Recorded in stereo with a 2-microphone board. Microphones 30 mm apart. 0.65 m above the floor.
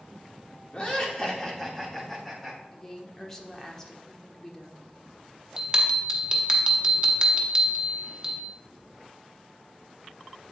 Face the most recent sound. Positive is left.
turn(degrees=-25)  # may be behind; listen again after turning